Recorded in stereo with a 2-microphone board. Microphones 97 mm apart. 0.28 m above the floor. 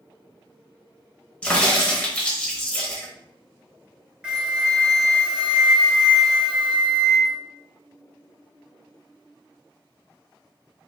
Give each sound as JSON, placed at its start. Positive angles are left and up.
{"t": 1.4, "sound": "a crack", "side_deg": 10, "distance_m": 1.1}
{"t": 4.2, "sound": "a flute", "side_deg": -10, "distance_m": 0.9}